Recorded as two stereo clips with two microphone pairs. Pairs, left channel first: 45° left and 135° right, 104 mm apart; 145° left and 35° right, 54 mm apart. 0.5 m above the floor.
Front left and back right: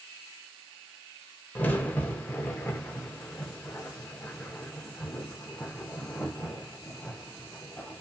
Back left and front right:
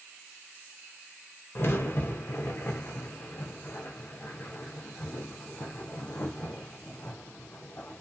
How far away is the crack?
About 0.5 m.